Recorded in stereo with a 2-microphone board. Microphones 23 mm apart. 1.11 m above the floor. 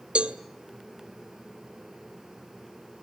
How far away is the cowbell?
About 1.5 m.